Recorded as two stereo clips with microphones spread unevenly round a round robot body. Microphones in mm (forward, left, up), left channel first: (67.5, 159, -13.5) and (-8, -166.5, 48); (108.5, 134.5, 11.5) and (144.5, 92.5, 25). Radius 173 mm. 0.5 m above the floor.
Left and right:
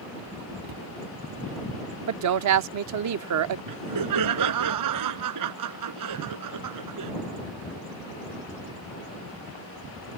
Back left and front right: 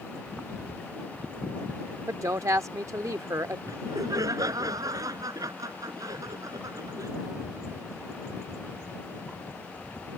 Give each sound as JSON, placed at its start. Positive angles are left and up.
{"t": 0.6, "sound": "a cupboard door", "azimuth_deg": -150}
{"t": 2.1, "sound": "a woman speaking", "azimuth_deg": -70}
{"t": 3.7, "sound": "laughter", "azimuth_deg": -70}